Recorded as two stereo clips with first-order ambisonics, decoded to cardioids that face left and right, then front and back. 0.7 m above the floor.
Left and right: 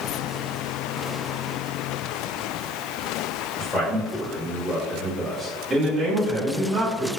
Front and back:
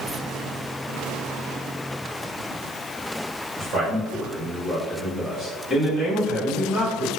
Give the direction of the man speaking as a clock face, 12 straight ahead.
7 o'clock.